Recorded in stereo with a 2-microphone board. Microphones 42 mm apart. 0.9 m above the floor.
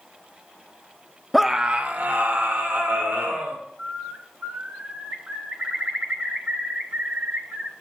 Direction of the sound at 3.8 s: 55° right (ahead or behind).